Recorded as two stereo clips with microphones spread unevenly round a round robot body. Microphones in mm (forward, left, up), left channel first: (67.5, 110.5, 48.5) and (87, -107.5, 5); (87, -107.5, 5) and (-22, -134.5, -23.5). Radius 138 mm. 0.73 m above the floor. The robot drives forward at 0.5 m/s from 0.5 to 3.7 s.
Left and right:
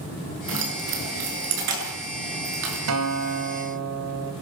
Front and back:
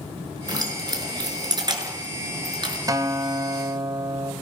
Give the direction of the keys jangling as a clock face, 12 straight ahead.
4 o'clock.